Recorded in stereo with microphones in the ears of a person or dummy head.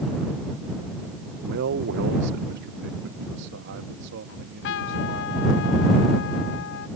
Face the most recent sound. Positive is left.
turn(degrees=55)  # may be behind; listen again after turning